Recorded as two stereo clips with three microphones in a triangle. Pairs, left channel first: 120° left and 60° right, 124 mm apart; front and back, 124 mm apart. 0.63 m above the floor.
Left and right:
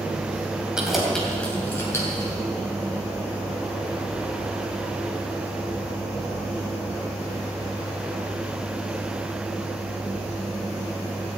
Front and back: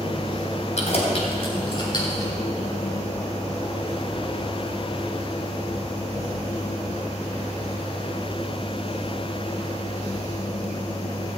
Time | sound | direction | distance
0.8 | keys jangling | 25° left | 3 m